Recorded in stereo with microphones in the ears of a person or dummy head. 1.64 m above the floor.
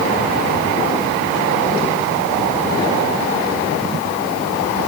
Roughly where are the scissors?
I don't hear scissors.